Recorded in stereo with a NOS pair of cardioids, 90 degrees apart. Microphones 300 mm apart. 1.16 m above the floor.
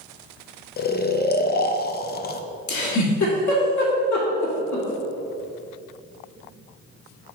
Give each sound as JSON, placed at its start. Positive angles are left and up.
{"t": 0.8, "sound": "snoring", "azimuth_deg": 35, "distance_m": 0.5}
{"t": 2.7, "sound": "a giggle", "azimuth_deg": 70, "distance_m": 2.0}